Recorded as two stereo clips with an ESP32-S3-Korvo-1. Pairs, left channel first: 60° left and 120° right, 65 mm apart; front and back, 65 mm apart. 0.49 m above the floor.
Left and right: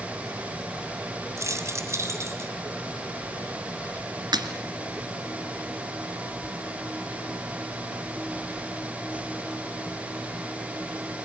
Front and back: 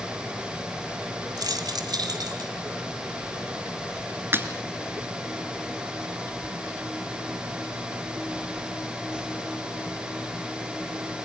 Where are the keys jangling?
165° right, 2.0 m; by 2.5 s 170° right, 2.5 m.